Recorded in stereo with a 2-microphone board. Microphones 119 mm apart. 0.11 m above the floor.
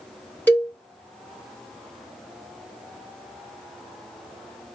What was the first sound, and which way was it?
A cowbell, 15° left (ahead or behind).